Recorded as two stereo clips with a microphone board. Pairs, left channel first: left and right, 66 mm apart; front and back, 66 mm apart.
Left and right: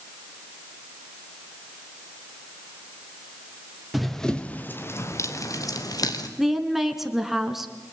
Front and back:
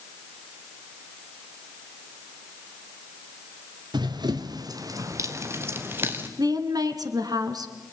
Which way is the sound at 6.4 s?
175° right.